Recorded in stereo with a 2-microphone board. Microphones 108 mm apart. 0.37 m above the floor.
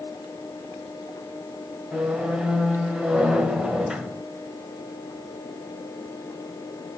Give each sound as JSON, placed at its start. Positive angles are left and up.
{"t": 1.9, "sound": "a squeak", "side_deg": -5, "distance_m": 0.9}